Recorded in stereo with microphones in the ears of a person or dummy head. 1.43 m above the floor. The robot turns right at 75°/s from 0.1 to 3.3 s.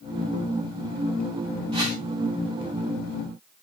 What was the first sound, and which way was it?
A whoosh, 20° right (ahead or behind).